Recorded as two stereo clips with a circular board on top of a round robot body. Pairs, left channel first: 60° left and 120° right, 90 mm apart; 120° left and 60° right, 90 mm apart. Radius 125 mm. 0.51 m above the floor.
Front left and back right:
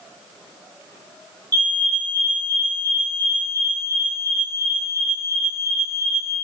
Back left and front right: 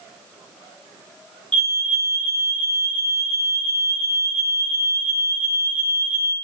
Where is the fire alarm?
165° right, 4 m.